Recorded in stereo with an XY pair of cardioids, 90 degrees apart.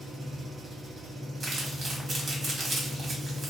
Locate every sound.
0.0 s an engine running: 50° right, 1.3 m
1.4 s crumpling: 50° right, 1.3 m